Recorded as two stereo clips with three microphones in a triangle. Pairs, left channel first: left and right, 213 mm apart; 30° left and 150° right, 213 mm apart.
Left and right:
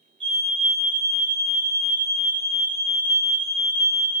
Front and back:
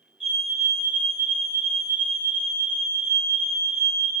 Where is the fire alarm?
90° right, 6 m.